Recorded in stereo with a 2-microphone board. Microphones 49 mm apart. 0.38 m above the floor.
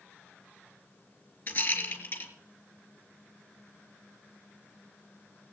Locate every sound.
1.5 s a rattle: 45° left (ahead or behind), 3.5 m